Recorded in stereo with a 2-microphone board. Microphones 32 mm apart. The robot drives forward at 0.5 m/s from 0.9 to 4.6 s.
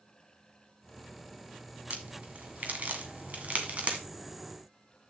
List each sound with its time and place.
1.9 s a crack: 55° right (ahead or behind), 1.9 m; by 4.0 s 50° right (ahead or behind), 2 m